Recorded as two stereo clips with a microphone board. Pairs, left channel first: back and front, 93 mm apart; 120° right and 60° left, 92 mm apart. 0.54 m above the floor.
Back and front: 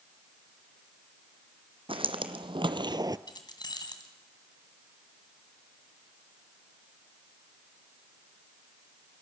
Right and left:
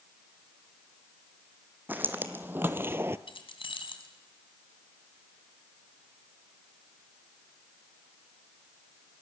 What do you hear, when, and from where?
1.9 s footsteps: 10° right, 1.6 m; by 3.2 s 10° left, 0.6 m
3.3 s keys jangling: 140° right, 2.5 m